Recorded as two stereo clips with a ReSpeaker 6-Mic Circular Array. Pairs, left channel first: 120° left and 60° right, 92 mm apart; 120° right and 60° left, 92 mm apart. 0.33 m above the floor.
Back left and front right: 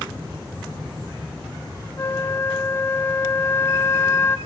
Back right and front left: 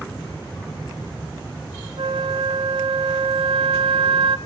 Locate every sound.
2.0 s a flute: 60° left, 0.7 m